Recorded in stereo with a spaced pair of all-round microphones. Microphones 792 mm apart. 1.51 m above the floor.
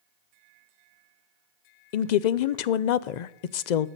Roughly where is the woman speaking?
Left.